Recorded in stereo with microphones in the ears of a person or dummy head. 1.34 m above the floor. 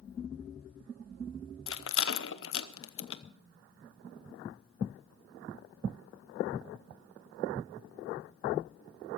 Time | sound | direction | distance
1.7 | a rattle | 60° left (ahead or behind) | 0.7 m